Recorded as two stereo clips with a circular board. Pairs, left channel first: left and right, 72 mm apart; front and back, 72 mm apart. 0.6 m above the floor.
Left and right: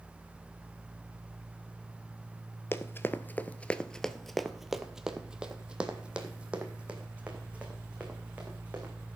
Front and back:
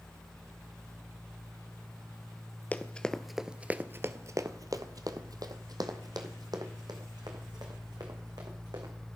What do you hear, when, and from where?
2.7 s running footsteps: 55° left, 0.7 m; by 8.9 s 160° right, 3 m